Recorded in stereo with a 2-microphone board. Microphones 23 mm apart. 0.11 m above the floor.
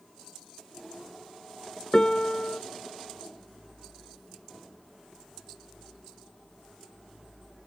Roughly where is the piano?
Left.